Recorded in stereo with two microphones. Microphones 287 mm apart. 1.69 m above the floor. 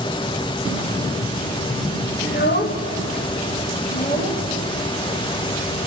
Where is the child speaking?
35° left (ahead or behind), 1.0 m.